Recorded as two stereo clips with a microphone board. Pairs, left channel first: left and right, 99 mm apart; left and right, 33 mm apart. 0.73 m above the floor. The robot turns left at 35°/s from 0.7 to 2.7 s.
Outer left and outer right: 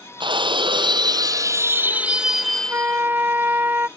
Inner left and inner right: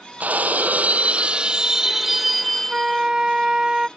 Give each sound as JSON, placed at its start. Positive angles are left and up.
{"t": 0.2, "sound": "breaking glass", "azimuth_deg": -120}
{"t": 2.7, "sound": "a flute", "side_deg": -20}